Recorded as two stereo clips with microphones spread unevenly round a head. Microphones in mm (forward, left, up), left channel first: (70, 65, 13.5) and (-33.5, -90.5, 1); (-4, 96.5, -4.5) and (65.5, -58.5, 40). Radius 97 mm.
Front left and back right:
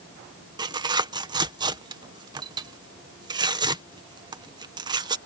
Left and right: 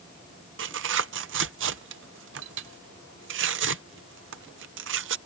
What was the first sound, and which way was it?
Tearing paper, 55° right.